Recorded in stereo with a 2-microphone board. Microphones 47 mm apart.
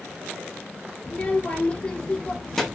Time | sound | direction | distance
1.0 | a child speaking | 35° left (ahead or behind) | 1.0 m